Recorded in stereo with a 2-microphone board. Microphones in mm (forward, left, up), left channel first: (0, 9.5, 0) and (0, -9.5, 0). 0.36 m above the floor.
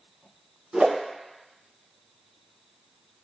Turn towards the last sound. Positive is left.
turn(degrees=-70)  # may be behind; listen again after turning